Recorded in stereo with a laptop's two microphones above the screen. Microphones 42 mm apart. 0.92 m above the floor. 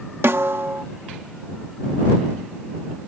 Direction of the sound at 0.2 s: 65° right (ahead or behind).